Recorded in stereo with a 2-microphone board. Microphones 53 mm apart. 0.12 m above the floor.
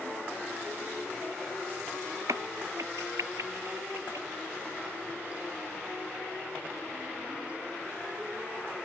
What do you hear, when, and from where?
2.3 s a crack: 85° right